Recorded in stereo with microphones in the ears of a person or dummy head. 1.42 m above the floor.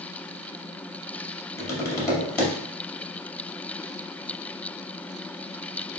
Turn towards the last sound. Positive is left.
turn(degrees=20)  # may be behind; listen again after turning